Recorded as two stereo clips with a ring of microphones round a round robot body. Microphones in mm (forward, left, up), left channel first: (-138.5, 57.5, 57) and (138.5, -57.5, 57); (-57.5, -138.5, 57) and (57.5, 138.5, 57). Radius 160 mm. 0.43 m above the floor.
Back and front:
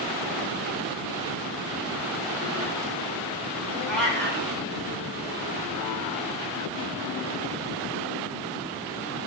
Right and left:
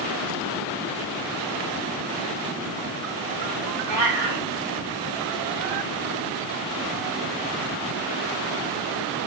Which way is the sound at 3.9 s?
70° left.